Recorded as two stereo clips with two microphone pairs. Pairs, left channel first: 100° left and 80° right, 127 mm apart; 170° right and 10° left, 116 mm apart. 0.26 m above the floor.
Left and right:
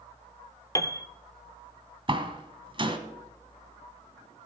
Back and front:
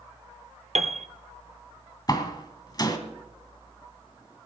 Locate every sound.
0.8 s a piano: 35° left, 0.9 m
2.1 s a door slam: 120° right, 1.8 m